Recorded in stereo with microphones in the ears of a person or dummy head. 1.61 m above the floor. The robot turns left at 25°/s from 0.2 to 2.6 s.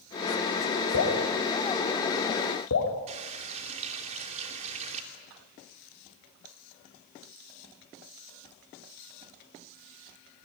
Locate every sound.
0.9 s dripping: 65° left (ahead or behind), 4 m; by 2.9 s 75° left (ahead or behind), 4 m
3.1 s a running tap: 35° right (ahead or behind), 3.5 m